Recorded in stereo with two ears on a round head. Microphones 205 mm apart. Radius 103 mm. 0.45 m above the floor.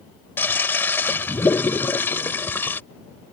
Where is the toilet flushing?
10° left (ahead or behind).